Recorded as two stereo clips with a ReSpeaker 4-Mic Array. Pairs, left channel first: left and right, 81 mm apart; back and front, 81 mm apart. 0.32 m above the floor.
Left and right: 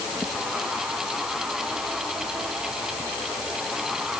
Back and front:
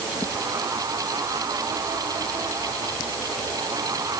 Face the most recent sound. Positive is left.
No sound to turn to.